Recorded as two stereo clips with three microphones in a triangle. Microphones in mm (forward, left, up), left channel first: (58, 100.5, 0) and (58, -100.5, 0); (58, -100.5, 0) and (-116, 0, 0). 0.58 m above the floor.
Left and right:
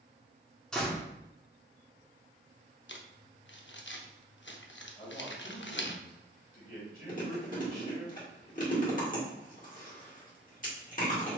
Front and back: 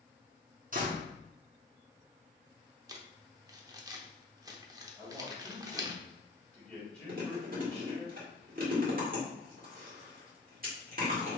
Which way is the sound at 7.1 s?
125° left.